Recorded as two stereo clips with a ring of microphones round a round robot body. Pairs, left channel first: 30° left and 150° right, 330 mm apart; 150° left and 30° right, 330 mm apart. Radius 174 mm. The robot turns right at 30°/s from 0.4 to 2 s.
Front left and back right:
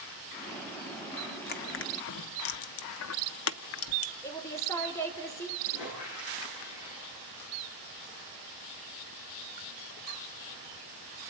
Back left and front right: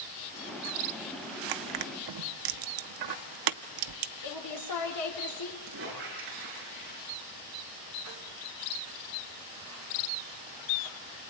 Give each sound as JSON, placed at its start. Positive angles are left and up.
{"t": 1.5, "sound": "crushing", "azimuth_deg": -30, "distance_m": 0.5}
{"t": 4.2, "sound": "a woman speaking", "azimuth_deg": 110, "distance_m": 4.0}
{"t": 5.7, "sound": "a squeak", "azimuth_deg": 25, "distance_m": 9.5}